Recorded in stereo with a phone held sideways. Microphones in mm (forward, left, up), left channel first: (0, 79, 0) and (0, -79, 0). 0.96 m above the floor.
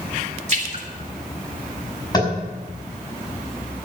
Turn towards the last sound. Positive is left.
turn(degrees=25)  # may be behind; listen again after turning